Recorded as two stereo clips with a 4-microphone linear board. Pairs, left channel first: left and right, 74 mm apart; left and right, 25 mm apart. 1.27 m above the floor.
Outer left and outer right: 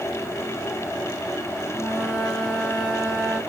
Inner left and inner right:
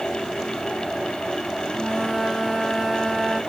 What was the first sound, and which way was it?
A flute, 10° right (ahead or behind).